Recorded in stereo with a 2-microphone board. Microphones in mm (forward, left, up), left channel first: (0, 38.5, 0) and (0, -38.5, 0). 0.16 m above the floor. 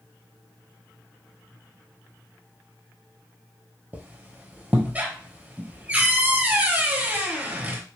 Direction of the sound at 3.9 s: 20° right (ahead or behind).